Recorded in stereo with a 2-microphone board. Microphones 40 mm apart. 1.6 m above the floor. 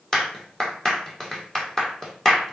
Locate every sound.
0.1 s a clap: 10° left (ahead or behind), 1.8 m